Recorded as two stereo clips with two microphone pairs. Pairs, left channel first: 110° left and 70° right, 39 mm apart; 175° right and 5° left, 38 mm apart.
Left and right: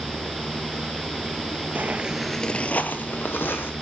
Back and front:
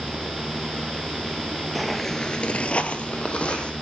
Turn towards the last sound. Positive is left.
turn(degrees=125)